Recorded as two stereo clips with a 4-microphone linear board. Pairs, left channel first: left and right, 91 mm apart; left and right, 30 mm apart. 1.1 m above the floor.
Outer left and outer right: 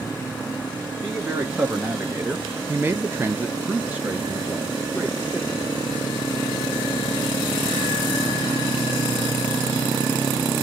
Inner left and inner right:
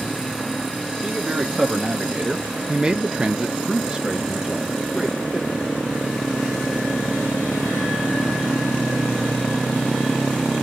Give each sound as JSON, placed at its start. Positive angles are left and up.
{"t": 1.0, "sound": "a man speaking", "side_deg": -10, "distance_m": 1.1}